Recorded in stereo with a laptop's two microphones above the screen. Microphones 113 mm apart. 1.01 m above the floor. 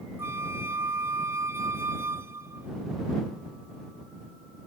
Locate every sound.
0.2 s a flute: 25° right (ahead or behind)